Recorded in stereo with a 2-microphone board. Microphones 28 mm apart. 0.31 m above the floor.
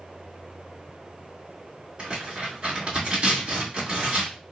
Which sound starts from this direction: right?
Tearing paper, at 2.0 s.